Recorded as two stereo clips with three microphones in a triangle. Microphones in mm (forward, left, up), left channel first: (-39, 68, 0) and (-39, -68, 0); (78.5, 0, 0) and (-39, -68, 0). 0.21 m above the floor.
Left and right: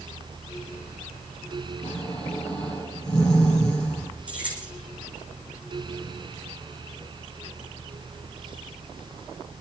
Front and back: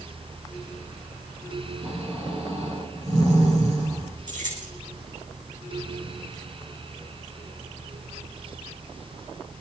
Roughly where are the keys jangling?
Behind.